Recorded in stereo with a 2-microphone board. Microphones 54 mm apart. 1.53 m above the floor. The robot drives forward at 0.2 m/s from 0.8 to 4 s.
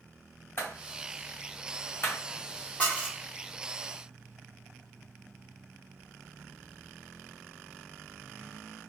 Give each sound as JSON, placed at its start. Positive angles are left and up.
{"t": 0.6, "sound": "a clap", "side_deg": 40, "distance_m": 1.2}
{"t": 2.8, "sound": "dishes clattering", "side_deg": 25, "distance_m": 0.9}